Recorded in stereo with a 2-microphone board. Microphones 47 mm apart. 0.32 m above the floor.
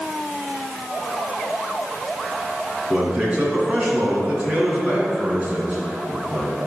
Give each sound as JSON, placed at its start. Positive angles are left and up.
{"t": 2.9, "sound": "a man speaking", "side_deg": -30, "distance_m": 3.5}